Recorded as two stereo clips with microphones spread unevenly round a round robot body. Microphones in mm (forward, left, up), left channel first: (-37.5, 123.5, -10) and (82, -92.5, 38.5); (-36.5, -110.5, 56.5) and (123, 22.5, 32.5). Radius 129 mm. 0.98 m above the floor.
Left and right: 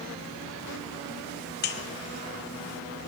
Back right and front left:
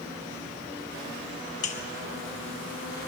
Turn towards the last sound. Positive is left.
turn(degrees=160)